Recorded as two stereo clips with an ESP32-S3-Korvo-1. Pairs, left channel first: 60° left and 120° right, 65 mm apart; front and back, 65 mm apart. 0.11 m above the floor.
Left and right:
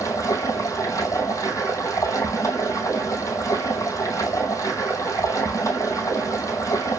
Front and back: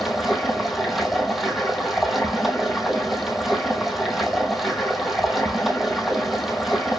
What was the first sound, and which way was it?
Running water, 95° left.